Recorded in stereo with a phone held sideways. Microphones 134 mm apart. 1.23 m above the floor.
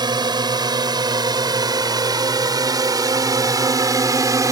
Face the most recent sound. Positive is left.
turn(degrees=-25)  # may be behind; listen again after turning